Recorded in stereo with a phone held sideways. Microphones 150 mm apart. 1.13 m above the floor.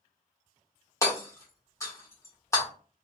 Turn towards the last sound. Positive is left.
turn(degrees=20)  # may be behind; listen again after turning